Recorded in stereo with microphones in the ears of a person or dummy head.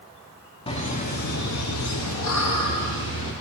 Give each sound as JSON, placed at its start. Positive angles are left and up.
{"t": 0.7, "sound": "laughter", "side_deg": 25, "distance_m": 1.0}